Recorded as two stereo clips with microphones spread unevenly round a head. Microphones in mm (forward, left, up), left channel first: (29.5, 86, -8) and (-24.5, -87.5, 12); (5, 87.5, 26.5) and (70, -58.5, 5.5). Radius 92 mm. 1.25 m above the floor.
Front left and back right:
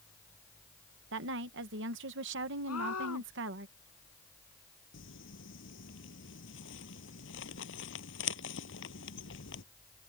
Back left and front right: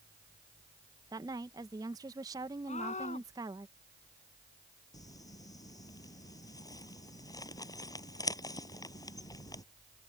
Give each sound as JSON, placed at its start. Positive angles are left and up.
{"t": 1.1, "sound": "a woman speaking", "azimuth_deg": -135}
{"t": 2.7, "sound": "a scream", "azimuth_deg": 70}
{"t": 4.9, "sound": "crumpling", "azimuth_deg": 50}